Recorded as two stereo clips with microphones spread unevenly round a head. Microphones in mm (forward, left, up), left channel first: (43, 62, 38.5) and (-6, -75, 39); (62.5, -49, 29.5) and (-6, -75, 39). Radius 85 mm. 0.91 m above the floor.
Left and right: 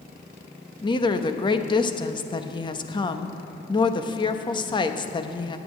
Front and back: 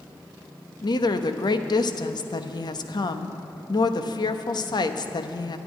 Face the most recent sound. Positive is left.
turn(degrees=15)